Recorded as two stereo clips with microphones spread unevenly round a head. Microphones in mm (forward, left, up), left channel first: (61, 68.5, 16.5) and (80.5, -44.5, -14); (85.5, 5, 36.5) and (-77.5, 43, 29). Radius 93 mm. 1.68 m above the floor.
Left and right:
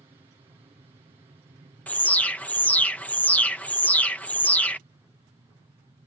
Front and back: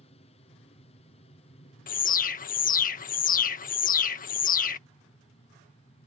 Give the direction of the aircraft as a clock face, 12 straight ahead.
2 o'clock.